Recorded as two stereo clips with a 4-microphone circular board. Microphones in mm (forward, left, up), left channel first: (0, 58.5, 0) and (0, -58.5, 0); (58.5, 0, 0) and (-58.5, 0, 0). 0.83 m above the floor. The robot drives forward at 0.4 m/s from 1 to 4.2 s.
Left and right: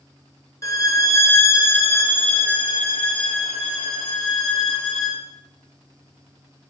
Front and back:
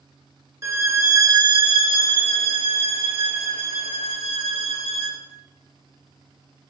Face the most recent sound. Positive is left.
turn(degrees=170)